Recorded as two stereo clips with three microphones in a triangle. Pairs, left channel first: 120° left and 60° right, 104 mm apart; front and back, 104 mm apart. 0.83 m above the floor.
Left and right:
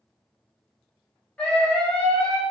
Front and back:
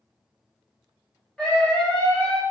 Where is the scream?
60° left, 0.9 m.